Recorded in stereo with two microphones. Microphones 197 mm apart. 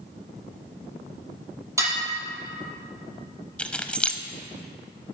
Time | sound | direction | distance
1.8 | dishes clattering | 15° right (ahead or behind) | 5 m
3.6 | keys jangling | 5° left (ahead or behind) | 0.8 m